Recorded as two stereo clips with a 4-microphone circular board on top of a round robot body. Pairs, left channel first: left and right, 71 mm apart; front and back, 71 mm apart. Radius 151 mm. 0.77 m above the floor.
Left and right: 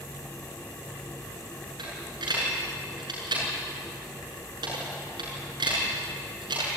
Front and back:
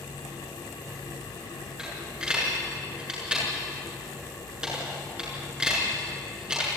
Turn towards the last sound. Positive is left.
turn(degrees=-105)